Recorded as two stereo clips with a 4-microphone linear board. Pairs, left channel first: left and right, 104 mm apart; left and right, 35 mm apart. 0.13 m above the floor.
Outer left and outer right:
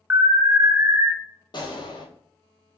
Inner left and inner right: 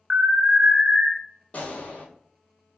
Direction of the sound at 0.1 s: 20° right (ahead or behind).